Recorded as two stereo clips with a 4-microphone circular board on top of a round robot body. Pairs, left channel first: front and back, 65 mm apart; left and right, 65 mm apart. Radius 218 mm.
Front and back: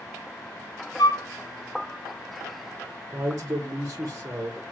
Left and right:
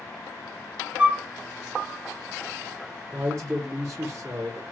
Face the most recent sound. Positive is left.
turn(degrees=-135)